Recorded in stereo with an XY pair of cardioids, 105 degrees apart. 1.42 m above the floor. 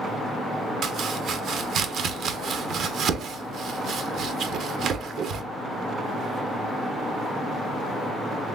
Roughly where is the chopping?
Ahead right.